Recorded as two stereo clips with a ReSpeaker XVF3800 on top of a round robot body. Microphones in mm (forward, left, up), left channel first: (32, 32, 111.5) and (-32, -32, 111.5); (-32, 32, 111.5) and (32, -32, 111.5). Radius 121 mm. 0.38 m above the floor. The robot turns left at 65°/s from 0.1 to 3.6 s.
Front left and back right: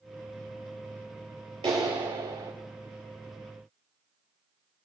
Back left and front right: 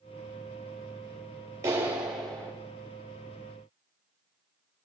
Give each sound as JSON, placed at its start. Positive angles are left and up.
{"t": 1.6, "sound": "a clap", "azimuth_deg": -100, "distance_m": 7.0}